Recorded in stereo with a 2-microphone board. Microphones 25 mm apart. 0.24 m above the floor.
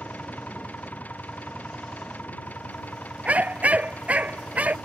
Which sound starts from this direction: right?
A dog barking, at 3.2 s.